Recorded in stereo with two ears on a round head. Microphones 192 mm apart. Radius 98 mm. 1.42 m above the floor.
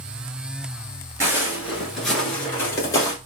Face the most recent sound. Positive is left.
turn(degrees=15)  # may be behind; listen again after turning